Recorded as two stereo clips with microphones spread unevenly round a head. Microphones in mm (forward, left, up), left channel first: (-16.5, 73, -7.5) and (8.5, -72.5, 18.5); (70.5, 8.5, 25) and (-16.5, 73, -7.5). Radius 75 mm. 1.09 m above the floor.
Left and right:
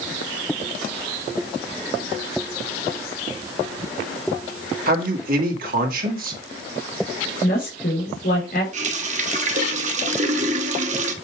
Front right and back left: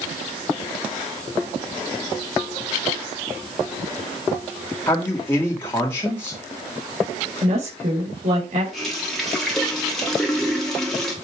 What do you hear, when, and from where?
4.9 s a man speaking: 115° right, 2 m
7.4 s a woman speaking: 135° left, 4.5 m
8.7 s a running tap: 120° right, 1.3 m